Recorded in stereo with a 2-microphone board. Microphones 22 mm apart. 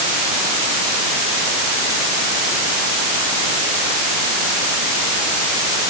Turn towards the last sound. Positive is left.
No sound to turn to.